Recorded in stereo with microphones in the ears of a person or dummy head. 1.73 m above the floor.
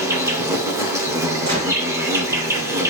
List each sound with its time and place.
0.0 s an insect: 10° right (ahead or behind), 0.8 m
1.4 s a gunshot: 35° right (ahead or behind), 3 m